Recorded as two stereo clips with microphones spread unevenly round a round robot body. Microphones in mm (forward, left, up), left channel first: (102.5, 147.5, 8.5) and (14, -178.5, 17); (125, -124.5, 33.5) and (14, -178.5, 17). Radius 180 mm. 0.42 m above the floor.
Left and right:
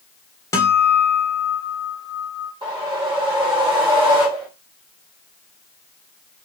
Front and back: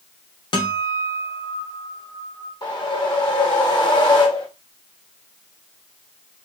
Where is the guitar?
5° left, 0.9 m.